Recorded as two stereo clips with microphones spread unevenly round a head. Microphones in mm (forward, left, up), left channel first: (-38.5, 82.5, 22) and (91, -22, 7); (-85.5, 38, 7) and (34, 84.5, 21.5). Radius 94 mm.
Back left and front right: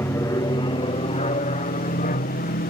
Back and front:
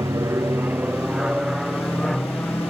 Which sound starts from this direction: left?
An aircraft, at 0.0 s.